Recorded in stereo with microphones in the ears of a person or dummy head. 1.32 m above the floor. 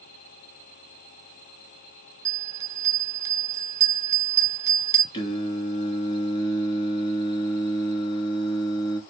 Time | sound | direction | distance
2.2 | a bell | 15° right (ahead or behind) | 0.8 m
5.1 | singing | 30° left (ahead or behind) | 1.5 m